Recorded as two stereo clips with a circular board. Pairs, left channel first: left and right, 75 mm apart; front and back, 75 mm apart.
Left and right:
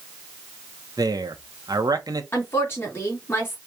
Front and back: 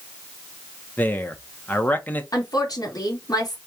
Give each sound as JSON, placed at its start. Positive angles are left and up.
{"t": 1.0, "sound": "a man speaking", "azimuth_deg": -65, "distance_m": 0.9}
{"t": 2.3, "sound": "a woman speaking", "azimuth_deg": 35, "distance_m": 2.0}